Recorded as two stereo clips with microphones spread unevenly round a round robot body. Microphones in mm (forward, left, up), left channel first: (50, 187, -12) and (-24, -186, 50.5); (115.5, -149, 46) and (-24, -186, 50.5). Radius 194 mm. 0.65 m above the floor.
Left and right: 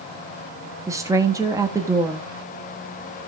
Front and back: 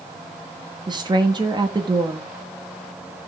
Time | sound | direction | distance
0.9 | a woman speaking | 165° left | 1.0 m